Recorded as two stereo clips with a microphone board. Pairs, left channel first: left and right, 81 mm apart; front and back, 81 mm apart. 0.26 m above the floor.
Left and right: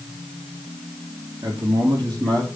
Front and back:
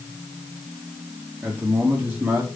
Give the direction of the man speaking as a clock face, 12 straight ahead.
4 o'clock.